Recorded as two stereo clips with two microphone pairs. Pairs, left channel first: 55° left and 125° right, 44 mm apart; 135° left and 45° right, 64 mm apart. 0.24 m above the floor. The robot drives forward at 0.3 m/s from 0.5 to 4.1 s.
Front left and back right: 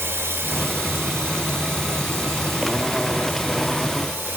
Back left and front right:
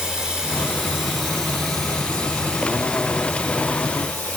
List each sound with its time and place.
0.0 s running water: 125° right, 1.0 m; by 4.4 s 155° right, 1.8 m